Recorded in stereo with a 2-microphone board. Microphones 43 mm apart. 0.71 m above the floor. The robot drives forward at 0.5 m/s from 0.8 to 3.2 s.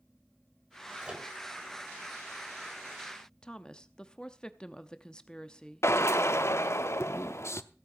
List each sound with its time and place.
1.0 s a microwave: 20° right (ahead or behind), 3 m
3.4 s a woman speaking: 20° left (ahead or behind), 0.7 m
5.8 s a drill: 75° left (ahead or behind), 0.7 m